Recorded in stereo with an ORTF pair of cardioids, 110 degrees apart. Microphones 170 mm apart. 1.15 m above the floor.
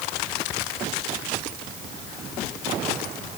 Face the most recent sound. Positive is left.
No sound to turn to.